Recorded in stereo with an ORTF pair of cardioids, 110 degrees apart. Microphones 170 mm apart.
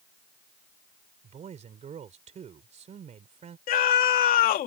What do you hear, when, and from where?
1.2 s a man speaking: 45° right
3.7 s a scream: 70° left